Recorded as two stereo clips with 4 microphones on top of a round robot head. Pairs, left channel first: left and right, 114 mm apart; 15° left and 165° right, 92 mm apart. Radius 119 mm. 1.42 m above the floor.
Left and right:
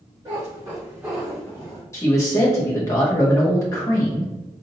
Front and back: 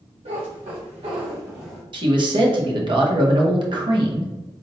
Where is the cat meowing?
155° right, 1.2 m; by 1.8 s 70° left, 0.6 m.